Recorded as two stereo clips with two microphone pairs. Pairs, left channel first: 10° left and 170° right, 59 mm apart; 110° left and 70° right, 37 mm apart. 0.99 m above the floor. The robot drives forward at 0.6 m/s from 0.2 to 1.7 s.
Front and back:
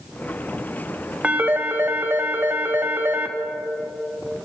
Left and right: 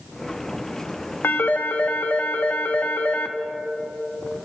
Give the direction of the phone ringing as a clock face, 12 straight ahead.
8 o'clock.